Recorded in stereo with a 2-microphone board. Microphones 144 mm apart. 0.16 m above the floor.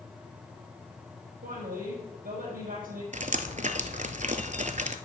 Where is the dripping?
60° right (ahead or behind), 0.8 m.